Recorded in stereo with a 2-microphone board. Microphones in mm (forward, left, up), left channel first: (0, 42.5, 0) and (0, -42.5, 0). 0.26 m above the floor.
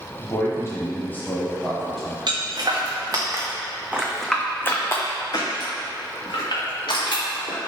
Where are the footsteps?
60° right (ahead or behind), 1.4 m; by 7.6 s 75° left (ahead or behind), 2.5 m.